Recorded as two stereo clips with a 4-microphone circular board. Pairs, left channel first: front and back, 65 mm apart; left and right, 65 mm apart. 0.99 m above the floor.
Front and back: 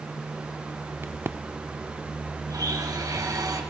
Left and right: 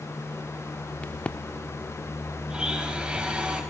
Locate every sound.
1.0 s a crack: 150° left, 0.7 m
2.5 s a blender: 165° right, 4 m